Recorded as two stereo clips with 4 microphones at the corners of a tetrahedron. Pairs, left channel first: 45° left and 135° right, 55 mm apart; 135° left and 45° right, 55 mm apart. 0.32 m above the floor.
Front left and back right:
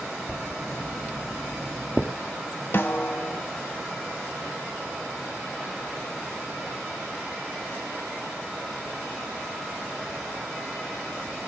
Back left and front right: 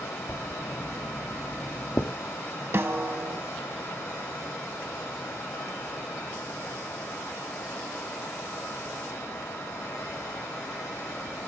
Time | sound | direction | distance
0.3 | writing | 145° left | 1.7 m
2.7 | a snare drum | straight ahead | 0.6 m